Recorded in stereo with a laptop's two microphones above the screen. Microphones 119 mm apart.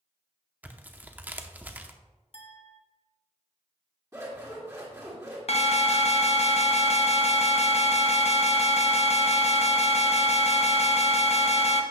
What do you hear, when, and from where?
0.6 s tearing paper: 15° right (ahead or behind), 0.7 m
2.3 s a clink: 60° left (ahead or behind), 1.2 m
4.1 s scissors: 25° right (ahead or behind), 2.5 m
5.5 s an alarm: 60° left (ahead or behind), 0.8 m